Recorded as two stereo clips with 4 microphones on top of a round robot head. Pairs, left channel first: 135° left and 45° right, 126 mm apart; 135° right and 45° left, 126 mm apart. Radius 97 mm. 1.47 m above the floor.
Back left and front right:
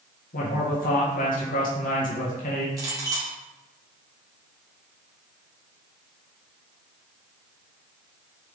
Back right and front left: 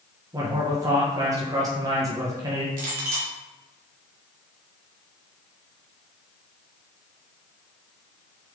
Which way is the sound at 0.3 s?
110° left.